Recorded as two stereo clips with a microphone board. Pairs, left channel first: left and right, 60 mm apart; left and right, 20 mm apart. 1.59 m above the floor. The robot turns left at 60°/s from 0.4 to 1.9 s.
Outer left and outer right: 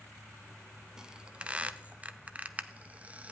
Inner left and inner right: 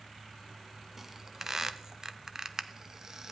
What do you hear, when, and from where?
1.0 s a squeak: 10° right (ahead or behind), 0.6 m; by 3.3 s 25° right (ahead or behind), 0.6 m